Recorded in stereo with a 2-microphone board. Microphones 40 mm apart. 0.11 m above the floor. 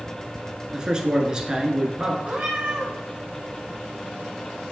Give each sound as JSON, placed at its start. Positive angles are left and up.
{"t": 0.7, "sound": "a man speaking", "side_deg": -20, "distance_m": 1.3}
{"t": 2.2, "sound": "a cat meowing", "side_deg": -30, "distance_m": 3.5}